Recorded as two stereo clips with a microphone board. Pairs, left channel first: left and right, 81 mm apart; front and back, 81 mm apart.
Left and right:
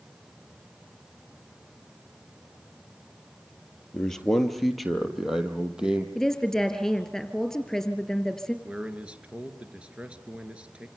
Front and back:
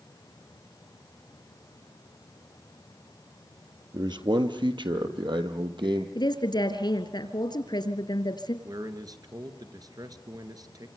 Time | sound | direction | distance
3.9 | a man speaking | 170° left | 2.5 m
6.2 | a woman speaking | 5° left | 2.5 m
8.7 | a man speaking | 165° right | 3 m